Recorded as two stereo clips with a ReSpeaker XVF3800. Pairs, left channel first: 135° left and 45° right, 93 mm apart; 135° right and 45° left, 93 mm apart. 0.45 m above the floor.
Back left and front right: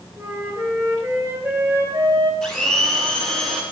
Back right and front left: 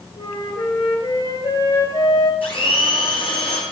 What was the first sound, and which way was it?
A flute, 115° right.